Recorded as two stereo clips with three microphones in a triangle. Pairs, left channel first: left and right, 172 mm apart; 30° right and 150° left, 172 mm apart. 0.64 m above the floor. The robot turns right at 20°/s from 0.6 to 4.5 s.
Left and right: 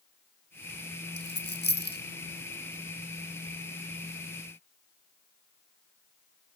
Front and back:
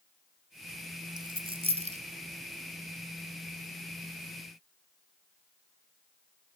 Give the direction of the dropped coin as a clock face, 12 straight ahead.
9 o'clock.